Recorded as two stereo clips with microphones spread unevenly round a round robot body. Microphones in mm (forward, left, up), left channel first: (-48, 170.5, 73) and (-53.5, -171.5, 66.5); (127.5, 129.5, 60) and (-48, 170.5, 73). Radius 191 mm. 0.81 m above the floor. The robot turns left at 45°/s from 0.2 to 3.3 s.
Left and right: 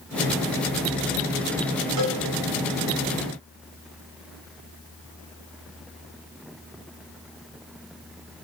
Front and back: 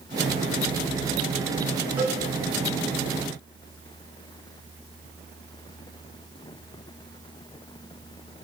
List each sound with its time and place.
2.0 s a cowbell: 120° right, 3 m; by 2.2 s 130° right, 3 m